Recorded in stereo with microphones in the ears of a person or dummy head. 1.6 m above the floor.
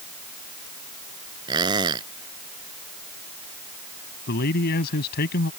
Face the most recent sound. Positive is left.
turn(degrees=50)  # may be behind; listen again after turning